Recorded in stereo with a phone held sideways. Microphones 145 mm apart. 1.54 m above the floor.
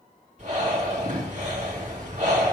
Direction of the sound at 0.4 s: 55° right (ahead or behind).